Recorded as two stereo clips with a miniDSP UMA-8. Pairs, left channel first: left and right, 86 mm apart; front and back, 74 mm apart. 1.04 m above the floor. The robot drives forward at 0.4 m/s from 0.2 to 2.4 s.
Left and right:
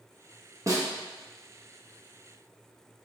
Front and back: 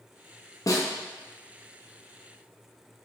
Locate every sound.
0.7 s a snare drum: 40° right, 0.8 m; by 0.9 s 45° right, 0.7 m